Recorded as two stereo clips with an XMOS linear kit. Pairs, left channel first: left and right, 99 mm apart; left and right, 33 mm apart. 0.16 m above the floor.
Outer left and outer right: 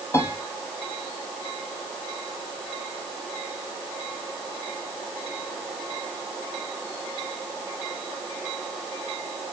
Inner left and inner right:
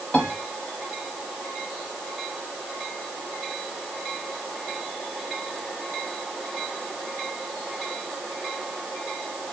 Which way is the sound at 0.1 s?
30° left (ahead or behind).